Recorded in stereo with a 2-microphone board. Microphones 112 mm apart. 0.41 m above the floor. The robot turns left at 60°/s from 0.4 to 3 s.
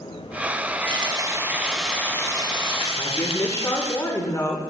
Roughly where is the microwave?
No microwave in this recording.